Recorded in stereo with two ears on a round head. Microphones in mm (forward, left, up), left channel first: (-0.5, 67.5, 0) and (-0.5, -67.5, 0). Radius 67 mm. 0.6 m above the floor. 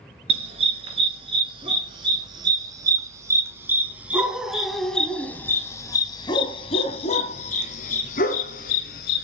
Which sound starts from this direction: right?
A dog barking, at 0.3 s.